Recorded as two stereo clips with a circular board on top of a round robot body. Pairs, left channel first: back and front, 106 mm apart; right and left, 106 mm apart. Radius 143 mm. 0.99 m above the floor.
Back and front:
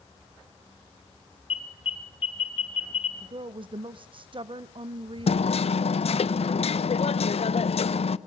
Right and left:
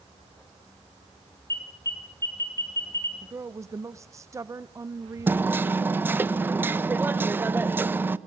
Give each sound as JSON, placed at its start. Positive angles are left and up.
{"t": 1.5, "sound": "an alarm", "azimuth_deg": -150, "distance_m": 4.5}
{"t": 3.2, "sound": "a woman speaking", "azimuth_deg": 30, "distance_m": 0.8}
{"t": 5.3, "sound": "hammering", "azimuth_deg": 160, "distance_m": 0.9}